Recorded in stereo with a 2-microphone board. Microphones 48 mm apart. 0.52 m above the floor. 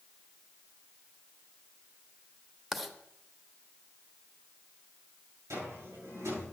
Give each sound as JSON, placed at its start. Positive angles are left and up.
{"t": 2.7, "sound": "writing", "side_deg": -5, "distance_m": 1.0}
{"t": 5.5, "sound": "a cupboard door", "side_deg": -80, "distance_m": 7.5}